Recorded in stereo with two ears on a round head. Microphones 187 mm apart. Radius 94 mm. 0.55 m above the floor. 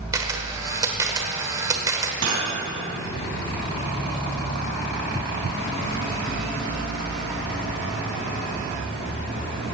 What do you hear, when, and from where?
0.1 s a camera shutter: 15° right (ahead or behind), 1.2 m
2.2 s cutlery clinking: 70° right (ahead or behind), 3 m